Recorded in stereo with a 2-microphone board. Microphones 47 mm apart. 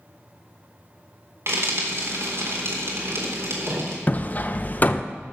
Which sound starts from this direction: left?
Hammering, at 4.1 s.